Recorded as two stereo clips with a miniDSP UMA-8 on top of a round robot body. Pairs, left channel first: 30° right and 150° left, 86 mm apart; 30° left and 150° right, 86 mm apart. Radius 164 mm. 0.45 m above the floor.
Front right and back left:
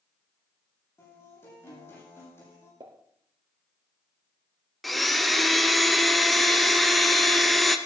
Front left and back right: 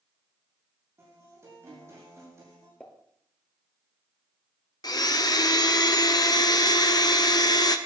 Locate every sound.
1.0 s a guitar: 90° right, 8.5 m
2.8 s a pop: 110° left, 2.5 m
4.8 s a blender: 60° left, 1.2 m